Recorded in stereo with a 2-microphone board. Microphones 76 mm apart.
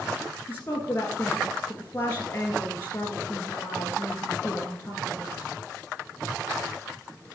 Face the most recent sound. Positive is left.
turn(degrees=30)  # may be behind; listen again after turning